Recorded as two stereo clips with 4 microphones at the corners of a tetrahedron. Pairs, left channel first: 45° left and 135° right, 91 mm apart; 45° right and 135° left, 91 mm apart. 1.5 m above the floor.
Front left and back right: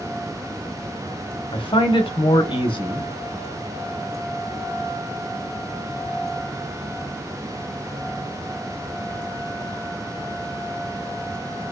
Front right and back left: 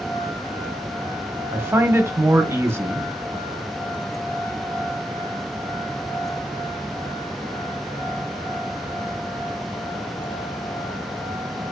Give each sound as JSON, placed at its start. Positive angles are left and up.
{"t": 1.5, "sound": "a man speaking", "azimuth_deg": 70, "distance_m": 0.7}